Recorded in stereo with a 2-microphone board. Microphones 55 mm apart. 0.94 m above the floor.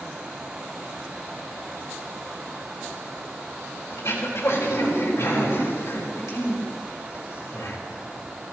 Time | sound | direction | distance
3.9 | throat clearing | 65° left (ahead or behind) | 4 m